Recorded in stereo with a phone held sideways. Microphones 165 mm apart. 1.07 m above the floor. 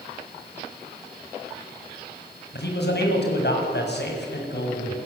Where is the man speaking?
80° left, 6.5 m.